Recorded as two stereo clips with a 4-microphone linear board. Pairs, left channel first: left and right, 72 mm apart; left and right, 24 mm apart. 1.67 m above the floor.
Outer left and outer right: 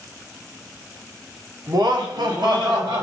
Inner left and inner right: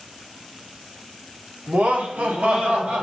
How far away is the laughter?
About 0.9 m.